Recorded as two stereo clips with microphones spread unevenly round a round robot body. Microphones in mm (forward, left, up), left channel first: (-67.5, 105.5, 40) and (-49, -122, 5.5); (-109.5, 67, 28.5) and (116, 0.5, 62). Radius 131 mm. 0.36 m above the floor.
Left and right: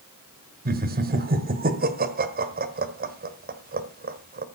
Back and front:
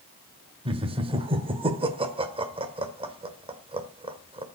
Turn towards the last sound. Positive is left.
turn(degrees=-85)